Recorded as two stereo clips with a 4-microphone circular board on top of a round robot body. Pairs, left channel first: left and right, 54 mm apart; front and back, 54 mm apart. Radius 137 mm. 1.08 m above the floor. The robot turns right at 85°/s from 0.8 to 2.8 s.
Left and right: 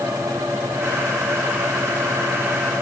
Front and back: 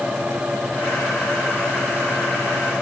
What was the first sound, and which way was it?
Only background noise.